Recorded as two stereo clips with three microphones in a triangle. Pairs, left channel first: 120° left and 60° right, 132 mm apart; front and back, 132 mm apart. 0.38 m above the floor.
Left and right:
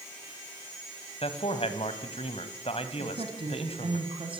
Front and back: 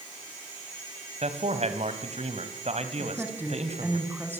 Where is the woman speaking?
105° right, 3.5 m.